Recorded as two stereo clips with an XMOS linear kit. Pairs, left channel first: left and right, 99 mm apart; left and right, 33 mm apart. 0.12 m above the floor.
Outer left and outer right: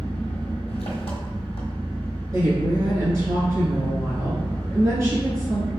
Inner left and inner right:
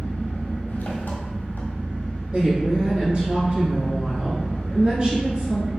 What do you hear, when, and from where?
0.0 s an engine running: 75° left (ahead or behind), 1.3 m
2.3 s a woman speaking: 35° right (ahead or behind), 1.5 m